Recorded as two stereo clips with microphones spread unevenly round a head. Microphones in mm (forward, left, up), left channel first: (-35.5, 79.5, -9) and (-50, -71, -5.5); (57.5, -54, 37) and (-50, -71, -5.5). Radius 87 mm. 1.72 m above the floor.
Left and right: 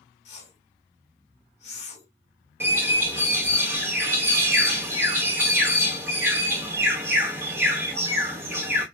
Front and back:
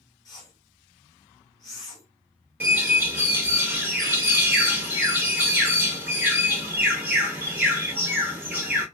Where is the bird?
55° right, 1.0 m.